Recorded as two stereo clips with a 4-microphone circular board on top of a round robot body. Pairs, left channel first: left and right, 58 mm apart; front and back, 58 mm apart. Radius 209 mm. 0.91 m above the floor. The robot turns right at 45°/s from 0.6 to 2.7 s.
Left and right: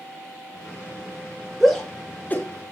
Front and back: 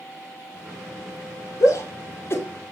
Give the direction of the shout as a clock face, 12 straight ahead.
12 o'clock.